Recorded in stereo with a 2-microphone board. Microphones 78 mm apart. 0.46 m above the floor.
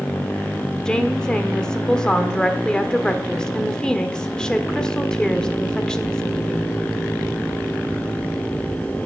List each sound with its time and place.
0.8 s a woman speaking: 10° left (ahead or behind), 1.3 m